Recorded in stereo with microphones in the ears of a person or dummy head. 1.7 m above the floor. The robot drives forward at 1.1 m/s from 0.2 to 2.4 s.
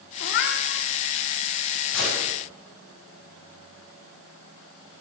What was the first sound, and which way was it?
A cat meowing, 60° left (ahead or behind).